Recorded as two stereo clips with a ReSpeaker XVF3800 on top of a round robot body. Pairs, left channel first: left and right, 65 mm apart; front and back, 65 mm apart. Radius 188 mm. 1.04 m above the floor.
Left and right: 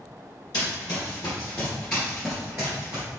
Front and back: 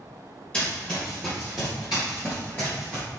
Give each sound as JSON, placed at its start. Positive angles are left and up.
{"t": 0.5, "sound": "running footsteps", "azimuth_deg": 70, "distance_m": 1.5}